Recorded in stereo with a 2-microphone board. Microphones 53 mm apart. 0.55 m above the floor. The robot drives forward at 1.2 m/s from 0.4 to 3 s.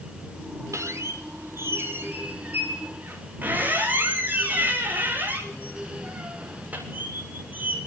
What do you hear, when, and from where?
0.7 s a squeak: 65° right (ahead or behind), 2.5 m; by 7.8 s 30° right (ahead or behind), 4.5 m